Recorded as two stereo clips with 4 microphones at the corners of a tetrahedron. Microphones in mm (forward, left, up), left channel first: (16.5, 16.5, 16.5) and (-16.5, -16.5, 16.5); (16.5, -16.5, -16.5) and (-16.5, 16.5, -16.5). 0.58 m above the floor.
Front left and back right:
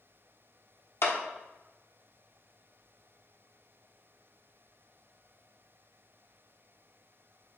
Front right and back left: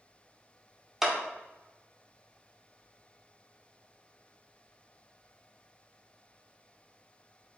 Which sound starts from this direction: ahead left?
A clap, at 1.0 s.